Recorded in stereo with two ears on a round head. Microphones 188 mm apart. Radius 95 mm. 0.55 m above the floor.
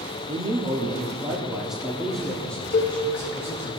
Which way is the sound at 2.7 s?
45° left (ahead or behind).